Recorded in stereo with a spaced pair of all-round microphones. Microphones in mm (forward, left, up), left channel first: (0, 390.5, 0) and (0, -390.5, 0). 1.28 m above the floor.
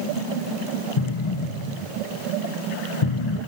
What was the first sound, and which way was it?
An explosion, 40° left (ahead or behind).